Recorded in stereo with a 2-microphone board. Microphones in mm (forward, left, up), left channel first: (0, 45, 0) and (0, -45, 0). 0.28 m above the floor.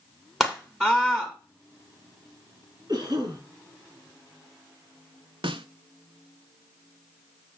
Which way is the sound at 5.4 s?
80° right.